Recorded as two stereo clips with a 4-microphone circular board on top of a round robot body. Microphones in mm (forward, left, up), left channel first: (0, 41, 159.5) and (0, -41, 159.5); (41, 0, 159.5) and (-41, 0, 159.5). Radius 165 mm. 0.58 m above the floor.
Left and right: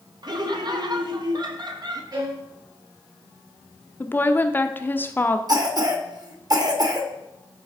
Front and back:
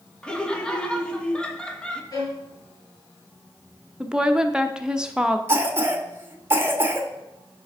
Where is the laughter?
75° right, 1.5 m.